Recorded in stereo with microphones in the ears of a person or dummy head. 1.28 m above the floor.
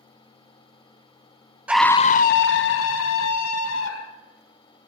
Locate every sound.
1.7 s a scream: 5° right (ahead or behind), 0.5 m; by 4.2 s 70° left (ahead or behind), 2 m